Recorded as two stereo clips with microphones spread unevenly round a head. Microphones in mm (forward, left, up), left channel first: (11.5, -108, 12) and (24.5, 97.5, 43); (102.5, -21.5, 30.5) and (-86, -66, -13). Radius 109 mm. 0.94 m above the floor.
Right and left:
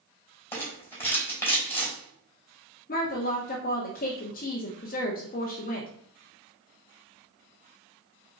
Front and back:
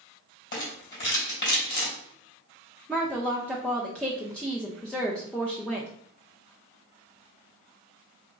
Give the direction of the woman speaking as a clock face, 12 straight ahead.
3 o'clock.